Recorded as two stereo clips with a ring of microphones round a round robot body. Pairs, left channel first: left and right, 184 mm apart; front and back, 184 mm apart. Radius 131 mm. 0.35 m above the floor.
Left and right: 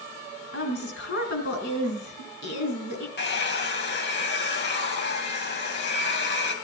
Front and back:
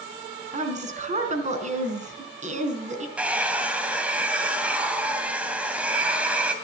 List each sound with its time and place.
0.5 s a woman speaking: 130° left, 4 m
3.2 s a hair dryer: 100° left, 3 m